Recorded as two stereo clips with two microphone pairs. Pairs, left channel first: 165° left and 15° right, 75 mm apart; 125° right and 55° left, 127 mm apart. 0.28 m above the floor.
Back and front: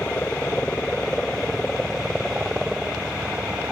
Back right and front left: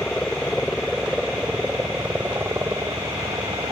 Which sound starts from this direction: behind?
A helicopter, at 0.0 s.